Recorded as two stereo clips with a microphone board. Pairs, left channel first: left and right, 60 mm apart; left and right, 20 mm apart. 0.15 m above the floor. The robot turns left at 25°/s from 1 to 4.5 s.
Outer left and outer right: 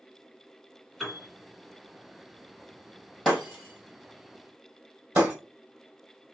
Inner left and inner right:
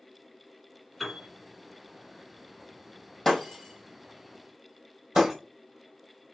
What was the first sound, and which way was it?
A piano, centre (ahead or behind).